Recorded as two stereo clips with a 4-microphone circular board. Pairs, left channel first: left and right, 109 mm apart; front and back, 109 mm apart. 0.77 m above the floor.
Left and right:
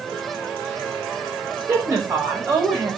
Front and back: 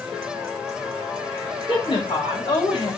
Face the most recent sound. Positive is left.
turn(degrees=-30)